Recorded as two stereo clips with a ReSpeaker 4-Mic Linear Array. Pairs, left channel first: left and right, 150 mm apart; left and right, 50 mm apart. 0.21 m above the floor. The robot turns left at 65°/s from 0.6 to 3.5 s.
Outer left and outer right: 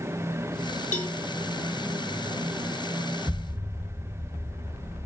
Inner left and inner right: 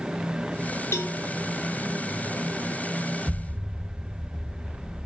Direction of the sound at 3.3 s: 10° right (ahead or behind).